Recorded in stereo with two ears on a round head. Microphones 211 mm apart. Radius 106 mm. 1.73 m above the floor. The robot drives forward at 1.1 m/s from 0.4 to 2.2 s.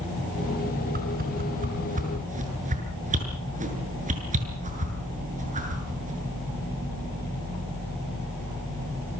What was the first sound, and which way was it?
A whoosh, 40° right (ahead or behind).